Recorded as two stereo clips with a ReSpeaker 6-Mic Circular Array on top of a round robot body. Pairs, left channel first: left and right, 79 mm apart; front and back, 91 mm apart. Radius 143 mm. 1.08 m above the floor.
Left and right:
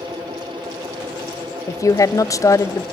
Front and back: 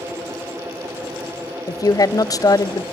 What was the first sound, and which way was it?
A woman speaking, 45° left.